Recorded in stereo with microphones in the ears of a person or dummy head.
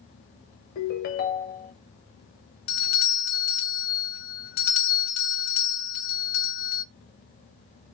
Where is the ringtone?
45° left (ahead or behind), 0.5 m.